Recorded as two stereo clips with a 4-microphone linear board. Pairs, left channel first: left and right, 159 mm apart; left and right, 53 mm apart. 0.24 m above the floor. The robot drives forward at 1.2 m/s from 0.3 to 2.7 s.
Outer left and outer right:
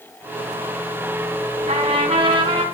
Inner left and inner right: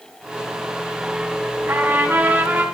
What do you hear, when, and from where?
1.7 s a trumpet: 45° right (ahead or behind), 1.9 m; by 2.6 s 30° right (ahead or behind), 2.5 m